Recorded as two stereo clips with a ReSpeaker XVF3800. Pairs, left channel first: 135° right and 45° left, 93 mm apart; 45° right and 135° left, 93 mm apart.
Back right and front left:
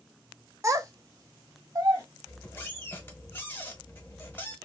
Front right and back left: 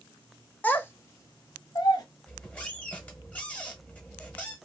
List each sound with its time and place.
0.6 s a child speaking: 20° left, 0.6 m; by 2.0 s 5° right, 1.2 m
2.3 s a squeak: 105° right, 0.9 m